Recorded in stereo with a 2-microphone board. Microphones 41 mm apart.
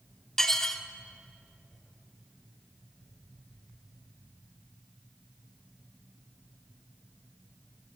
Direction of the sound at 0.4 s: 10° left (ahead or behind).